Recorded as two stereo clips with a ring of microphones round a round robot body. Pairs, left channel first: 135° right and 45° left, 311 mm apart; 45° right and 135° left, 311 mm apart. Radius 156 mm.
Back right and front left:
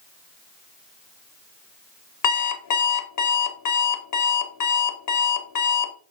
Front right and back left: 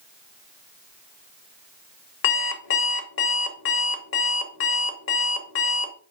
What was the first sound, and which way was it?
An alarm clock, 100° right.